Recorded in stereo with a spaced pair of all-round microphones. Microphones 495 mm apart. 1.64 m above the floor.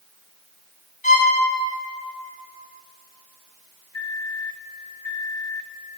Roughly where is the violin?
Left.